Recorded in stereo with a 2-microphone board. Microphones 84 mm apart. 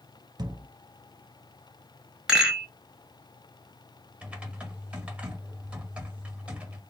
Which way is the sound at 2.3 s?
5° right (ahead or behind).